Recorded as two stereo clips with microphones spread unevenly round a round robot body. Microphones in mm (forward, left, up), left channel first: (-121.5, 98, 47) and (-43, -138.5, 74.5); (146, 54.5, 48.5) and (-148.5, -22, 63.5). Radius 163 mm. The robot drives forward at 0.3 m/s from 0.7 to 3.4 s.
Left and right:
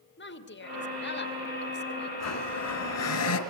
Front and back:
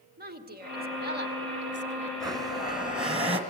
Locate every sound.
0.2 s a woman speaking: 135° left, 2.5 m; by 2.1 s 145° left, 2.5 m
2.2 s a blender: 115° left, 2.5 m; by 3.4 s 125° left, 3 m